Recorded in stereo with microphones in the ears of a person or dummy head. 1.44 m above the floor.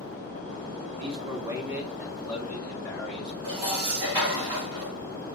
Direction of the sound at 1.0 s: 35° right (ahead or behind).